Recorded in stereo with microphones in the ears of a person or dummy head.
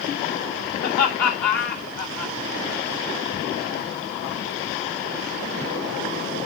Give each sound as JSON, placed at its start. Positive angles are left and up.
{"t": 0.8, "sound": "laughter", "side_deg": 60, "distance_m": 2.5}